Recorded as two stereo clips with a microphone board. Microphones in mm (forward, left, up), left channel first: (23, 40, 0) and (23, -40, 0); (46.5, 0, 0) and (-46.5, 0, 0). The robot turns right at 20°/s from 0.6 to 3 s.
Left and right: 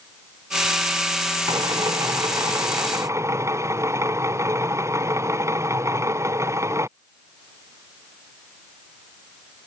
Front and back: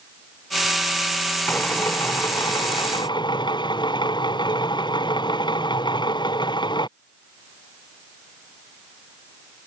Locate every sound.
1.5 s a drill: 70° right; by 6.9 s 35° right